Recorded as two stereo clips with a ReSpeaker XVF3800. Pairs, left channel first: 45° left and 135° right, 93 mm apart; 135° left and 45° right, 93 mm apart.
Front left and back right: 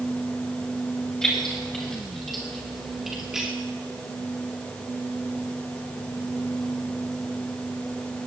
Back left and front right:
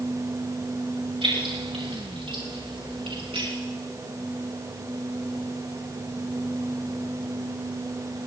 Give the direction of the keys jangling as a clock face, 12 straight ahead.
1 o'clock.